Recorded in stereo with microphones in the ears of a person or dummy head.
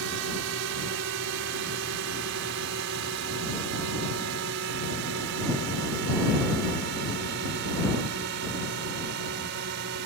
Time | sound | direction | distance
0.0 | a drone | 65° right (ahead or behind) | ?